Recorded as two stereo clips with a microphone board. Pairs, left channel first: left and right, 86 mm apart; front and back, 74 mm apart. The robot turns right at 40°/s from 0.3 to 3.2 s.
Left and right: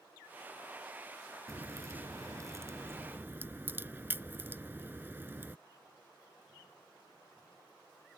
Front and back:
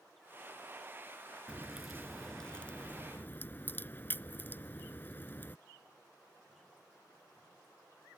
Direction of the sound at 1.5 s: 110° right.